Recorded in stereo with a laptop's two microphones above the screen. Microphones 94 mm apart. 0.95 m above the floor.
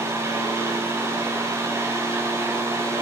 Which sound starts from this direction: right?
A fan, at 0.0 s.